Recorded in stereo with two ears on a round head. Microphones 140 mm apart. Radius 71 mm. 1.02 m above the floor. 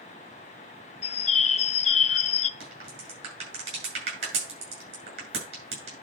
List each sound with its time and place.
1.0 s a bird: 40° left (ahead or behind), 0.5 m
2.6 s a crack: 40° right (ahead or behind), 7.5 m